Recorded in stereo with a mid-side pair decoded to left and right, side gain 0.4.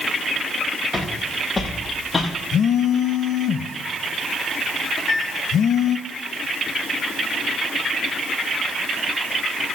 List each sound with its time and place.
0.9 s footsteps: 35° left, 6.5 m; by 2.3 s 25° left, 6 m
2.5 s a phone buzzing: 65° left, 0.8 m
5.0 s a microwave: 55° left, 2.5 m